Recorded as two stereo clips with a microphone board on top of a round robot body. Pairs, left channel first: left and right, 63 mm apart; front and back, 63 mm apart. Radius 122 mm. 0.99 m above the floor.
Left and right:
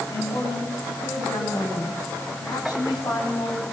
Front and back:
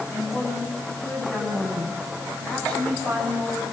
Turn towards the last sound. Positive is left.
turn(degrees=75)